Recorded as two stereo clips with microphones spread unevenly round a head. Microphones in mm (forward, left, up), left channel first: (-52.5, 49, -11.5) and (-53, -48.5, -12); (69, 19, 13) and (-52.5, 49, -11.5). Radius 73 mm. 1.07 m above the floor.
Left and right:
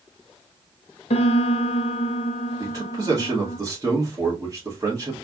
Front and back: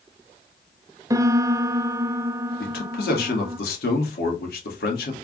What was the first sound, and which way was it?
A piano, 95° left.